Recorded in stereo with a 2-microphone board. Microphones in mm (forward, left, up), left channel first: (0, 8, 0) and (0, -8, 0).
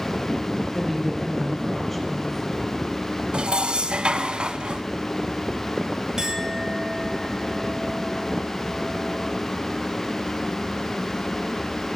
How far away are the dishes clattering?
About 1.9 m.